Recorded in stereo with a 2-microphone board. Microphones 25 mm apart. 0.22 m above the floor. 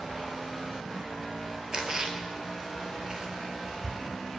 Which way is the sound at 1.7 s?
30° right (ahead or behind).